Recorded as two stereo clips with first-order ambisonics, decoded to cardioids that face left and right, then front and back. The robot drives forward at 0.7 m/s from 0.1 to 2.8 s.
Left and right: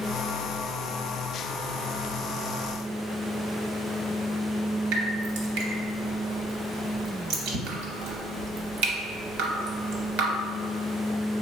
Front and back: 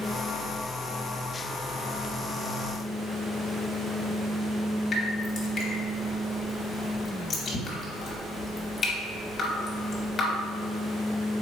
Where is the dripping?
70° right, 0.7 m.